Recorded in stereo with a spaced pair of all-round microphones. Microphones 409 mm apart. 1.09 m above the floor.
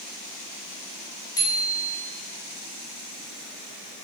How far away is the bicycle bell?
About 6 m.